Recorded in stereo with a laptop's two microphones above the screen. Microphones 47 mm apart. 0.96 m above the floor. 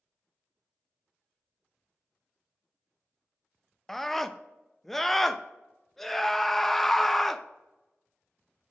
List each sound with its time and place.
3.9 s a scream: 5° left (ahead or behind), 0.8 m